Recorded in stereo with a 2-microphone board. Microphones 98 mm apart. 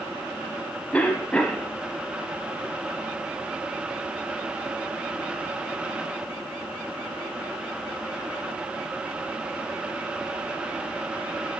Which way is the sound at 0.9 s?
15° left (ahead or behind).